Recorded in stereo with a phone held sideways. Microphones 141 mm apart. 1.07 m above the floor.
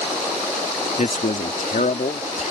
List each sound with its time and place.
1.0 s a man speaking: 70° left (ahead or behind); by 2.5 s 65° left (ahead or behind)